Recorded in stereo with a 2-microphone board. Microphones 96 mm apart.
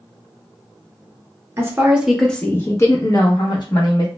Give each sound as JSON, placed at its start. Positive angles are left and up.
{"t": 1.6, "sound": "a woman speaking", "side_deg": -30, "distance_m": 0.6}